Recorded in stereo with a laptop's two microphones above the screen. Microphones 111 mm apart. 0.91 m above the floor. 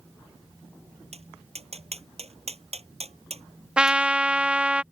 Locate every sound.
1.1 s tapping: 65° right (ahead or behind)
3.8 s a trumpet: 10° right (ahead or behind)